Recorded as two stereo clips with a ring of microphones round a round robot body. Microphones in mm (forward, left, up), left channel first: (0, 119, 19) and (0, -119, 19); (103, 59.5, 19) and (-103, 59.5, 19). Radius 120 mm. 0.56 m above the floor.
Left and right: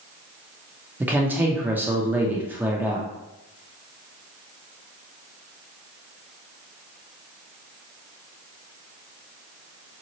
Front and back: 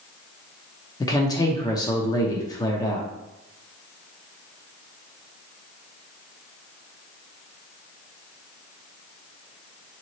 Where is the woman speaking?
25° right, 0.6 m.